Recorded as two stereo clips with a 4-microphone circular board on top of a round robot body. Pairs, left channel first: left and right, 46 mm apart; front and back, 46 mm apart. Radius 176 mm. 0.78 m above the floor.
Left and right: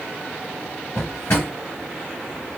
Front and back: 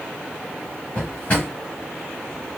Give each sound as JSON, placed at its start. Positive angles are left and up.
{"t": 0.9, "sound": "a drawer", "azimuth_deg": 60, "distance_m": 0.9}